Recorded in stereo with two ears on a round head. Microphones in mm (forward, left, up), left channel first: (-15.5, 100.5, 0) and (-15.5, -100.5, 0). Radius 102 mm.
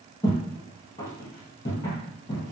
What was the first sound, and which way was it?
Footsteps, 15° left (ahead or behind).